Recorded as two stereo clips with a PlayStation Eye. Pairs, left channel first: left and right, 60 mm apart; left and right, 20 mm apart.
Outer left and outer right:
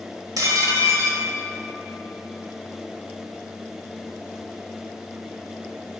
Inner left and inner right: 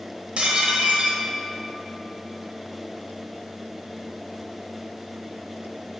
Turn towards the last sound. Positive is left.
turn(degrees=-75)  # may be behind; listen again after turning